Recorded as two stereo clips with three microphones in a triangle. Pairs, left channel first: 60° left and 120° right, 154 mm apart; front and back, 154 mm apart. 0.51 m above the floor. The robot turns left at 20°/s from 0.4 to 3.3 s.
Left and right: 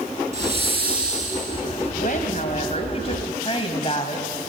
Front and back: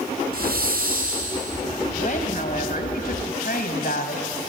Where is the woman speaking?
35° left, 3 m; by 4.3 s 5° left, 3 m.